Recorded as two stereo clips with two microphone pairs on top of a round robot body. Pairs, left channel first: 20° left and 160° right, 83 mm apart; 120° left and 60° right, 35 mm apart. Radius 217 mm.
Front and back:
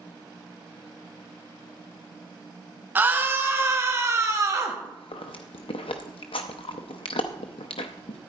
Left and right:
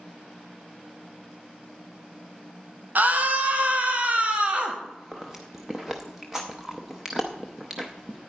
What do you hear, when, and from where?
3.0 s a scream: 95° right, 2 m; by 4.7 s 110° right, 3 m
4.8 s chewing: 20° left, 0.6 m